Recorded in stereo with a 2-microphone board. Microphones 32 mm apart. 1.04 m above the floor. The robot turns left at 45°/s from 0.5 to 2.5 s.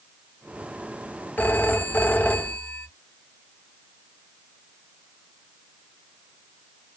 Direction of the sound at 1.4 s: 110° left.